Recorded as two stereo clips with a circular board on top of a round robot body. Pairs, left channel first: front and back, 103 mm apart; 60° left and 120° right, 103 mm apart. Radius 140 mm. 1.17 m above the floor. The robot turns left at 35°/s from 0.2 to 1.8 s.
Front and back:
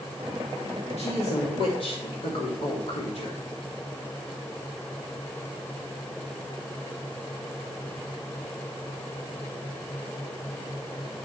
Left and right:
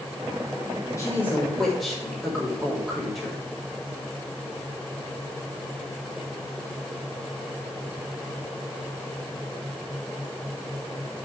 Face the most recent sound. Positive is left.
turn(degrees=-30)